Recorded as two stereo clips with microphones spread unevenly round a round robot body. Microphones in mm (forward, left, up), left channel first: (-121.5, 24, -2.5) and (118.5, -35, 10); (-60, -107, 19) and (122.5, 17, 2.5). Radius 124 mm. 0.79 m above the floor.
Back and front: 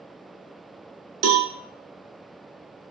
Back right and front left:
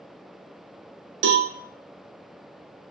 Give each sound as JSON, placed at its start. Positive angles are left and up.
{"t": 1.2, "sound": "a cowbell", "azimuth_deg": 10, "distance_m": 0.7}